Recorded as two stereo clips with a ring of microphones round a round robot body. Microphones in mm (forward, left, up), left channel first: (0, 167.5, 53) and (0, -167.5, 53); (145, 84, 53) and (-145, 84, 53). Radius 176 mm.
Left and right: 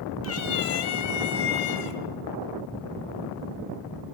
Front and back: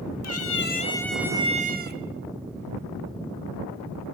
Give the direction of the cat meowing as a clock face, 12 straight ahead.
11 o'clock.